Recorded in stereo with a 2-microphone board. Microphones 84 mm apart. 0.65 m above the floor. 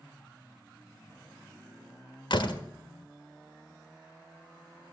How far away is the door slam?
About 1.5 m.